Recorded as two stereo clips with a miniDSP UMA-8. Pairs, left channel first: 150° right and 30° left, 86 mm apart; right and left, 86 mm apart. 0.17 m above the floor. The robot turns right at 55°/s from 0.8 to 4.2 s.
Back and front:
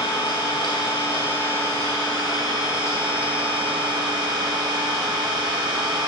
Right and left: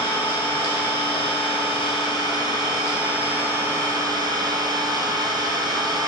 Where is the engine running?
140° right, 2.5 m; by 6.1 s 45° left, 2.5 m.